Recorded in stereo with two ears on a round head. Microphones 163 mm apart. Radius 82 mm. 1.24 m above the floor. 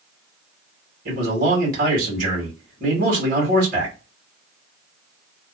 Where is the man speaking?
50° right (ahead or behind), 1.9 m.